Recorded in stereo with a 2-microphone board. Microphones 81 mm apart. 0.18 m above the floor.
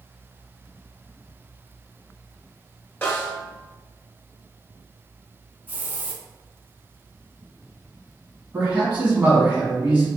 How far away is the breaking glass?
No breaking glass in this recording.